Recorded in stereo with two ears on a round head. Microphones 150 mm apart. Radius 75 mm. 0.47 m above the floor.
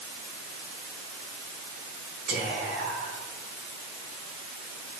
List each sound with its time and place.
2.3 s whispering: 70° right (ahead or behind), 4 m